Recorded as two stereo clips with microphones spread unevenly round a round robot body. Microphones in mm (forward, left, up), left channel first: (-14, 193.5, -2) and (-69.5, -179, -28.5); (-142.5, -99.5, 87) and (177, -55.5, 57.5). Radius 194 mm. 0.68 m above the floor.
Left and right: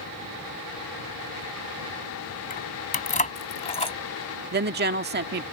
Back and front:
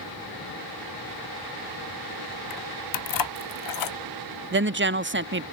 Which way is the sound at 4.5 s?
40° right.